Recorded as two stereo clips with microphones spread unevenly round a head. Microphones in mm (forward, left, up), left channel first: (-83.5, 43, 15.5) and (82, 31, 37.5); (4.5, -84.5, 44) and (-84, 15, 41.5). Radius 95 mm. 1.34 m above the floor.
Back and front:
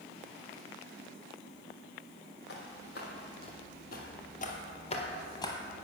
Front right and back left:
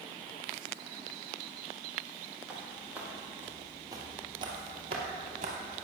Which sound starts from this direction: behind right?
Footsteps, at 2.5 s.